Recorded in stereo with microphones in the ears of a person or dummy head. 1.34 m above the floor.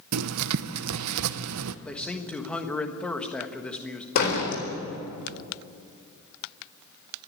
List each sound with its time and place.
0.1 s writing: 85° right, 0.7 m
1.9 s a man speaking: 5° left (ahead or behind), 1.4 m
4.2 s a door slam: 55° left (ahead or behind), 4 m